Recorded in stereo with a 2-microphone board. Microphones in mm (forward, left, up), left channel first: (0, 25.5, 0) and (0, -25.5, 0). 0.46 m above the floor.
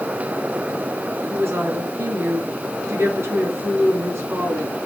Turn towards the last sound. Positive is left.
turn(degrees=-65)  # may be behind; listen again after turning